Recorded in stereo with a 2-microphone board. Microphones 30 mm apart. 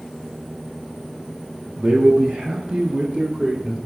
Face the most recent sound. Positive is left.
turn(degrees=-35)  # may be behind; listen again after turning